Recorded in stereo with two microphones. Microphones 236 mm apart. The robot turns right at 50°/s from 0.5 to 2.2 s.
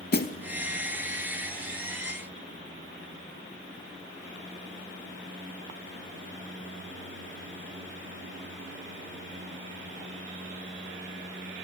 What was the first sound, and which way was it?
A snare drum, 45° left (ahead or behind).